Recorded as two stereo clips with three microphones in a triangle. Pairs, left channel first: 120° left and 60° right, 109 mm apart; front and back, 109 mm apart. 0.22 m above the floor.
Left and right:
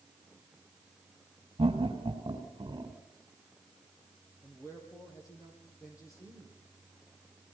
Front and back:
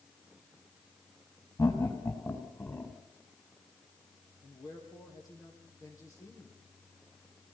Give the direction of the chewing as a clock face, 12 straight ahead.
I don't hear chewing.